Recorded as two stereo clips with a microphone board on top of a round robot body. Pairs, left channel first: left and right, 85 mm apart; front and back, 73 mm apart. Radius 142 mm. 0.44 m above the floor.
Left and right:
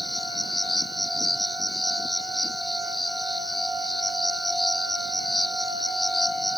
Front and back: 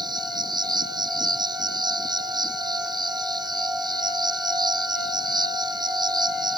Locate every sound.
0.0 s an insect: straight behind